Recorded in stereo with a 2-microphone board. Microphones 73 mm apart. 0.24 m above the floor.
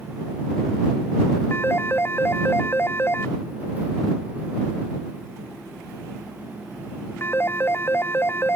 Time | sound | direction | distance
1.5 | a phone ringing | 30° left (ahead or behind) | ?